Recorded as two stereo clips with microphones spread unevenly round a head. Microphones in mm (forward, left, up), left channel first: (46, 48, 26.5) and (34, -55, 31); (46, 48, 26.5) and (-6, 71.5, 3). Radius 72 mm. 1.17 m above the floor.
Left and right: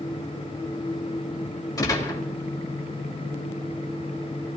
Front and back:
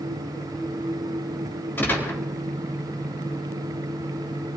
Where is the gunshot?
30° left, 3.5 m.